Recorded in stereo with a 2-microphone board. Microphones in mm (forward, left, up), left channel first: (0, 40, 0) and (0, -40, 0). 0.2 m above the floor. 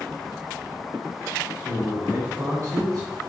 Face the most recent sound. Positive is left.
turn(degrees=-50)  # may be behind; listen again after turning